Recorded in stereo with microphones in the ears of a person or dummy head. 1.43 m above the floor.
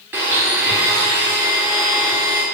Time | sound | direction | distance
0.1 | a blender | 10° right (ahead or behind) | 1.2 m